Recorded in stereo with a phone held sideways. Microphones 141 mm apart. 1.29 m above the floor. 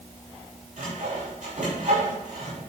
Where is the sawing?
60° right (ahead or behind), 4.5 m.